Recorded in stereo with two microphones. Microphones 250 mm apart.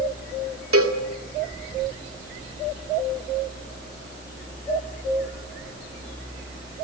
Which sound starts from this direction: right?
A cowbell, at 0.7 s.